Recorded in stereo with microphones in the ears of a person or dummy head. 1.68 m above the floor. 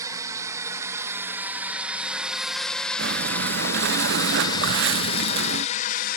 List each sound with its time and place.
0.0 s a drone: 20° right (ahead or behind); by 6.2 s 50° left (ahead or behind)
3.0 s breathing: 70° right (ahead or behind)